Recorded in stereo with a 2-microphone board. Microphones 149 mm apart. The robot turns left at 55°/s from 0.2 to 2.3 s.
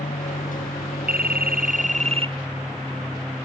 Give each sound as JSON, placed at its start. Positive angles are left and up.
{"t": 0.0, "sound": "an aircraft", "side_deg": 60}
{"t": 1.1, "sound": "a phone ringing", "side_deg": -80}